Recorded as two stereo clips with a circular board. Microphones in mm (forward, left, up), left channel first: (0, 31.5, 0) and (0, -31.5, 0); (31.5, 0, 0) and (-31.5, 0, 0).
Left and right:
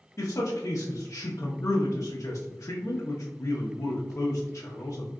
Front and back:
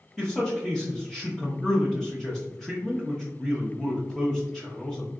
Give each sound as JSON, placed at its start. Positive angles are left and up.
{"t": 0.2, "sound": "a man speaking", "azimuth_deg": 85, "distance_m": 0.7}